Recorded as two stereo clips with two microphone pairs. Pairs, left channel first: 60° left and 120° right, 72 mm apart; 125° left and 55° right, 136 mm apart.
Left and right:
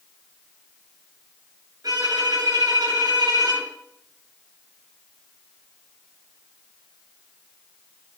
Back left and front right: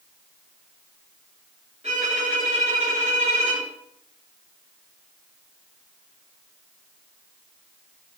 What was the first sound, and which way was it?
A violin, 95° right.